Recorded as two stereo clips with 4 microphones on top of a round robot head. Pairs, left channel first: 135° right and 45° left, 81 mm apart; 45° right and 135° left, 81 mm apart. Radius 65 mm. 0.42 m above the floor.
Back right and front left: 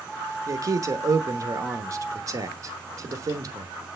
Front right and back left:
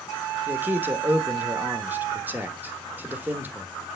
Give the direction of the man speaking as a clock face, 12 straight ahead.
10 o'clock.